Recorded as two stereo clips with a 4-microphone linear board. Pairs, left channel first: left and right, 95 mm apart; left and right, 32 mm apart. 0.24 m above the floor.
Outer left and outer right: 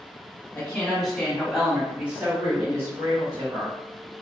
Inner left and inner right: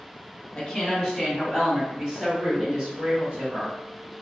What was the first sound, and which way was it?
A woman speaking, 15° left (ahead or behind).